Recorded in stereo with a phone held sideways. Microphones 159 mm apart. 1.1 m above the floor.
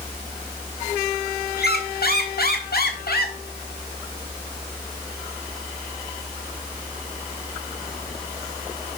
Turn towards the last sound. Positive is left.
turn(degrees=70)  # may be behind; listen again after turning